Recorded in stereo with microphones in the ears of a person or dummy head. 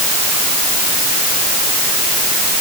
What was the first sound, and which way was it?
Only background noise.